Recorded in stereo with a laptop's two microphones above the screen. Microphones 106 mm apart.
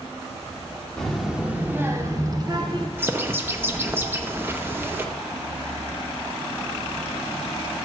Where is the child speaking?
5° left (ahead or behind), 1.5 m; by 2.9 s 45° right (ahead or behind), 2.5 m.